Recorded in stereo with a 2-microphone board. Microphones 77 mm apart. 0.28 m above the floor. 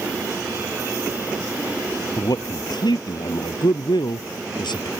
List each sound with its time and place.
2.2 s a man speaking: 65° left (ahead or behind); by 4.9 s 80° left